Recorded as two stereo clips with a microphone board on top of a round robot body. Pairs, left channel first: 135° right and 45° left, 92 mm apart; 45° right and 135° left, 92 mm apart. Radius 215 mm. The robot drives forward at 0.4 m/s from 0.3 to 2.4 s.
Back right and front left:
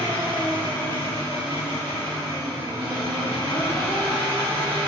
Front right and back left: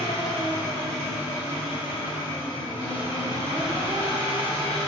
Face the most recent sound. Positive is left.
turn(degrees=160)